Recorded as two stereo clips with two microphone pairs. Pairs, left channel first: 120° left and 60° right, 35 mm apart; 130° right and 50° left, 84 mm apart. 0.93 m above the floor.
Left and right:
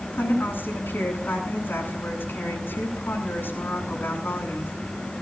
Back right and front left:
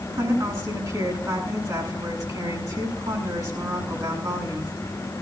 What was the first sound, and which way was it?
A woman speaking, 95° left.